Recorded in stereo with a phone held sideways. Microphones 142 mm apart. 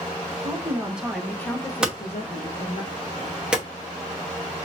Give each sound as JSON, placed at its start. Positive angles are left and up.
{"t": 0.4, "sound": "a woman speaking", "side_deg": -20, "distance_m": 1.2}
{"t": 1.8, "sound": "hammering", "side_deg": -5, "distance_m": 0.9}